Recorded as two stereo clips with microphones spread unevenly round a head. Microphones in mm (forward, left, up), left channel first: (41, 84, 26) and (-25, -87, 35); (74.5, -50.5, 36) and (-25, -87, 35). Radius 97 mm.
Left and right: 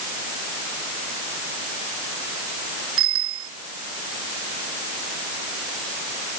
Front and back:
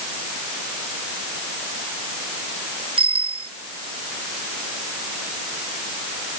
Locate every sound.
3.0 s a bicycle bell: 130° right